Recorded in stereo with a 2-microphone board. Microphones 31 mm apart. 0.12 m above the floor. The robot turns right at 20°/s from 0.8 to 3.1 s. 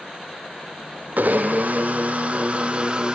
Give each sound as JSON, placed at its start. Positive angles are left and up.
{"t": 1.2, "sound": "a blender", "azimuth_deg": -70, "distance_m": 1.9}